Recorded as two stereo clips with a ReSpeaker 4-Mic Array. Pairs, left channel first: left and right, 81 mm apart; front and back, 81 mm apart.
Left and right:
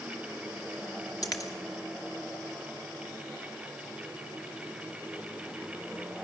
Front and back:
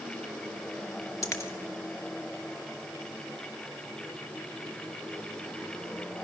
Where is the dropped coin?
50° left, 2 m.